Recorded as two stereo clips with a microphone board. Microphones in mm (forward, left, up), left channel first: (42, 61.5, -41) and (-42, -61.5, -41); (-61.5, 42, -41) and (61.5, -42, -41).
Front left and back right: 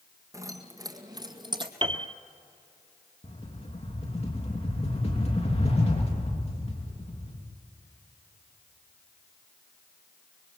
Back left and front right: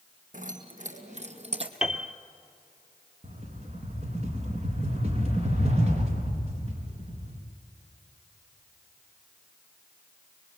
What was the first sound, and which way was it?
Keys jangling, 55° right.